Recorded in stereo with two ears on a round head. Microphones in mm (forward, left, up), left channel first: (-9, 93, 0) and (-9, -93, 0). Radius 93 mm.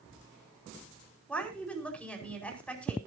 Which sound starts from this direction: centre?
A woman speaking, at 1.3 s.